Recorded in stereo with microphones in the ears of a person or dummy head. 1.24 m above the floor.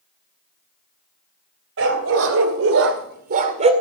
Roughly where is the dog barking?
Right.